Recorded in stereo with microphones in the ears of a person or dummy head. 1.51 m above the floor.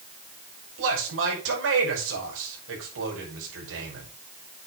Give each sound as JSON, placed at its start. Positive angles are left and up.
{"t": 0.8, "sound": "a man speaking", "side_deg": -80, "distance_m": 5.5}